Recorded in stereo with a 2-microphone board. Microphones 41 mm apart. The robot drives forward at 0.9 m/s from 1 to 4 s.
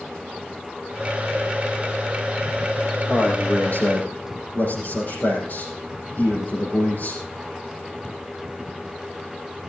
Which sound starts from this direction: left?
A man speaking, at 3.1 s.